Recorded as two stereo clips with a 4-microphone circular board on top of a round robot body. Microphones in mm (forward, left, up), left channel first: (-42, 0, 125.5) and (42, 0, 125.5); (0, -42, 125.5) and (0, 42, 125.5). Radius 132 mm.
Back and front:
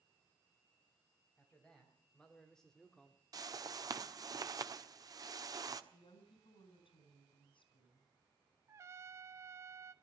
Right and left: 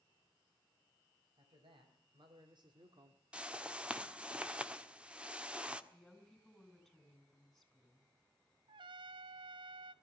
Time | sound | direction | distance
1.4 | a man speaking | 95° left | 4 m
3.3 | a whoosh | 20° left | 1.6 m
5.9 | a woman speaking | straight behind | 4.5 m
8.7 | a trumpet | 60° left | 0.5 m